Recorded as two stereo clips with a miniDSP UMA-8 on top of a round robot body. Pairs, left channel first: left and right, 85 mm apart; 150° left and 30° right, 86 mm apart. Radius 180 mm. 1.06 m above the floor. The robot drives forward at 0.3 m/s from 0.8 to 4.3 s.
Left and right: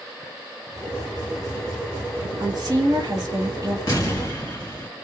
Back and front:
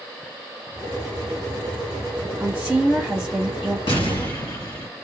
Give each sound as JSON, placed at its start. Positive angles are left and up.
{"t": 2.4, "sound": "a woman speaking", "azimuth_deg": -90, "distance_m": 1.0}
{"t": 3.9, "sound": "an explosion", "azimuth_deg": 140, "distance_m": 1.4}